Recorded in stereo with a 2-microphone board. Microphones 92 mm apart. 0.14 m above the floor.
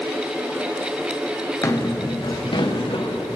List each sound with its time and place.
1.6 s footsteps: 35° left (ahead or behind), 1.3 m; by 3.4 s 80° left, 1.6 m